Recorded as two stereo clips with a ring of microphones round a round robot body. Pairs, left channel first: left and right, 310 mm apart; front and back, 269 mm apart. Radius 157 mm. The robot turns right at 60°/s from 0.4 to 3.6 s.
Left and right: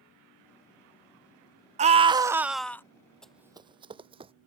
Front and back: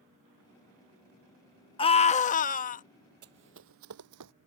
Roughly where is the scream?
Ahead right.